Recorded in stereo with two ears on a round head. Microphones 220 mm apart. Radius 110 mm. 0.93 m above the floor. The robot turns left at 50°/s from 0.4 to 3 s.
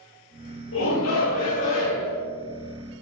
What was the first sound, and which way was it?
A shout, 95° left.